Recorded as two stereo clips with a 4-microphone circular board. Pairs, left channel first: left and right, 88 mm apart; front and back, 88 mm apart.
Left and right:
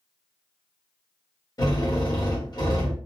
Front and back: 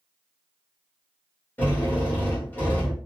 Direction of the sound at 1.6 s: 65° left.